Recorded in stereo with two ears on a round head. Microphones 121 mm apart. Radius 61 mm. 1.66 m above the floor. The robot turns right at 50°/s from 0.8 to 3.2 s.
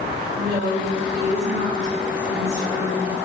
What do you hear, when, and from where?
0.4 s a woman speaking: 105° right, 3 m; by 3.1 s 15° left, 3 m